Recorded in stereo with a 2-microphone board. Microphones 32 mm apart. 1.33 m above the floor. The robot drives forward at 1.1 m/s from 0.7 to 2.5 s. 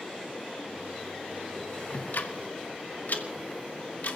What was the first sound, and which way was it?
Ticking, 75° left (ahead or behind).